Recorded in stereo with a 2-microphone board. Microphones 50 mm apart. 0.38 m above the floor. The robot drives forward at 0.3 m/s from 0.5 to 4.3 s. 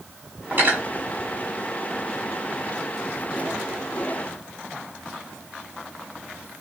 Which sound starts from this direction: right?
Cutlery clinking, at 0.5 s.